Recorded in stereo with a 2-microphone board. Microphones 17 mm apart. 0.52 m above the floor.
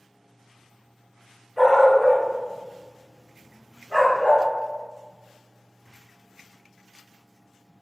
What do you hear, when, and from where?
1.6 s a dog barking: 20° left (ahead or behind), 1.5 m; by 4.5 s 70° left (ahead or behind), 2.0 m